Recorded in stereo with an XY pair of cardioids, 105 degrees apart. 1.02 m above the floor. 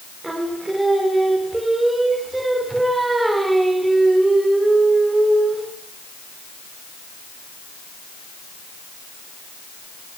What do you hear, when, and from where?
0.2 s singing: 15° right, 2 m